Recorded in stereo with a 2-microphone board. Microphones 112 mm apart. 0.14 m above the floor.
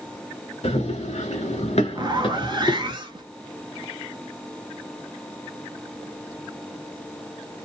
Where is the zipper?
45° right (ahead or behind), 0.7 m.